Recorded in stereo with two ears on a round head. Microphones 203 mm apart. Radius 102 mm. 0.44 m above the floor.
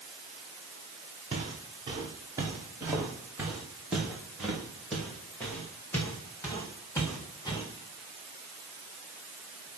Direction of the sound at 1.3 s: 25° right (ahead or behind).